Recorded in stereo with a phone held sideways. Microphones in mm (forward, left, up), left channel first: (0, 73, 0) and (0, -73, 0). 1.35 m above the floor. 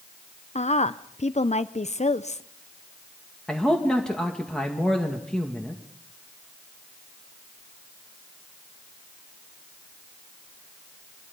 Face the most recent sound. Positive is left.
turn(degrees=5)  # may be behind; listen again after turning